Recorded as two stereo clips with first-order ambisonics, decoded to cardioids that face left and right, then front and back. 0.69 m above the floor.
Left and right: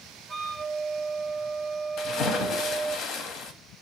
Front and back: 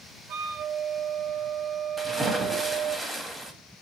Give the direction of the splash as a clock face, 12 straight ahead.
8 o'clock.